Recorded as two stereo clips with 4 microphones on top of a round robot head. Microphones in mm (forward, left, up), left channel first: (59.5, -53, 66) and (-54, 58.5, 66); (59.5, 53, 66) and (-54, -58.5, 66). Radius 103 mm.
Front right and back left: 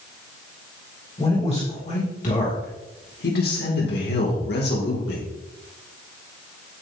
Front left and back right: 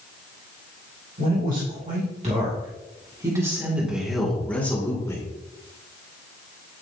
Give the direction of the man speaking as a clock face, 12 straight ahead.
3 o'clock.